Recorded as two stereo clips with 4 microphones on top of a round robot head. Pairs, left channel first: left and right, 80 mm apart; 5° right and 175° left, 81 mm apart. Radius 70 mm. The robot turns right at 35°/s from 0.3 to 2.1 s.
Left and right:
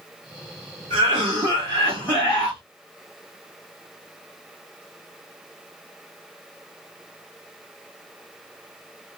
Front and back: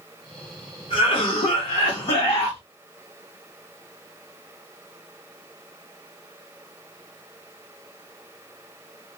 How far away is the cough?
About 1.3 m.